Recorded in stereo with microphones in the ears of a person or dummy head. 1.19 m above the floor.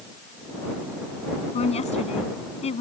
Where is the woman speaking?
35° left (ahead or behind).